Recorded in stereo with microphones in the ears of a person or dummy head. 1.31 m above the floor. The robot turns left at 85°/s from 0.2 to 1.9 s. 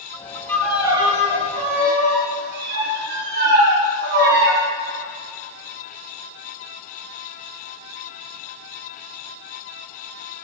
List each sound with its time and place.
0.5 s a violin: 10° left, 2 m; by 4.6 s 110° right, 2 m